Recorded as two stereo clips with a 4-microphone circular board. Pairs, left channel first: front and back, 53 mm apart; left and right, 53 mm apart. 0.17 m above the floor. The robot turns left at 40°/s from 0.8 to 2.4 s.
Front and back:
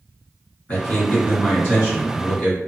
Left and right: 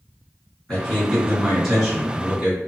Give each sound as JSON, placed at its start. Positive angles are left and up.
{"t": 0.7, "sound": "a man speaking", "azimuth_deg": 30, "distance_m": 1.8}